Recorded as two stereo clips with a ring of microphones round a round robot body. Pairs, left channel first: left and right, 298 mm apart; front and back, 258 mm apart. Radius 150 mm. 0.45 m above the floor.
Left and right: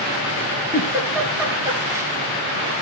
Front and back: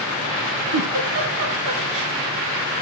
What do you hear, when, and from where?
0.7 s a giggle: 170° right, 4 m